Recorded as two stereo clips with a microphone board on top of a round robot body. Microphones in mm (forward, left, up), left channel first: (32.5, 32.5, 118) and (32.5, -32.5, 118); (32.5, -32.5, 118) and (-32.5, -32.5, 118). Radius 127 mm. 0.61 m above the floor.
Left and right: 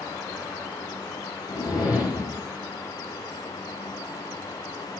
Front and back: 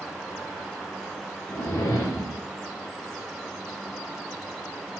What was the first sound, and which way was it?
A whoosh, 60° left.